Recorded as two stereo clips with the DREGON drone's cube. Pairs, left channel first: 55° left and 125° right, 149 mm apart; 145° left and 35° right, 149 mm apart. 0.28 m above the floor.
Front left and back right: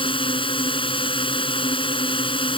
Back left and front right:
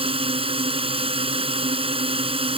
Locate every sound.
0.0 s a drone: 10° left